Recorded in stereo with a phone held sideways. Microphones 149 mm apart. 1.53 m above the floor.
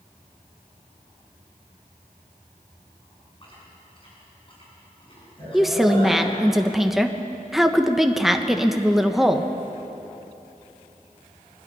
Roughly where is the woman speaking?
Centre.